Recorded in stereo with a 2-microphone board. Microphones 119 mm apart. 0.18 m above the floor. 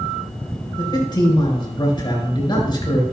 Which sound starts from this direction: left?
A man speaking, at 0.8 s.